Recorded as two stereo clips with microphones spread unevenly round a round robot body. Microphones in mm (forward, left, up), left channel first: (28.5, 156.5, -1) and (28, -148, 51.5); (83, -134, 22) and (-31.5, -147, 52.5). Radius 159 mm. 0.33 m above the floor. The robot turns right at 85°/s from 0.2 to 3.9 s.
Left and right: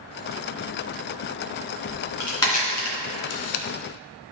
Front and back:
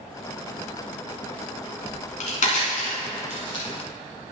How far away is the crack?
About 2.5 m.